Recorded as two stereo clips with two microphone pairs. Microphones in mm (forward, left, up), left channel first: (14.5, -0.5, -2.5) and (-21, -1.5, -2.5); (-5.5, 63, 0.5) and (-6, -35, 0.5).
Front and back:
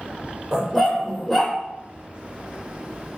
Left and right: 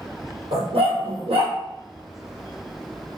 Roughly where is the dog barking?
Right.